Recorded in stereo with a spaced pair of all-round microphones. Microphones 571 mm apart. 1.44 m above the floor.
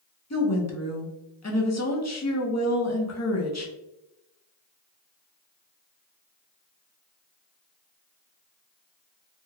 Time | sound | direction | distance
0.3 | a woman speaking | 30° left (ahead or behind) | 0.6 m